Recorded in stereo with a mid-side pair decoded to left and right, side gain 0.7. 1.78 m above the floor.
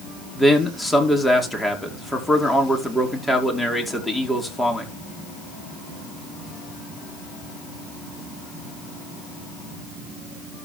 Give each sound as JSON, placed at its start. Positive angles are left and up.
{"t": 0.3, "sound": "a man speaking", "azimuth_deg": 10, "distance_m": 4.5}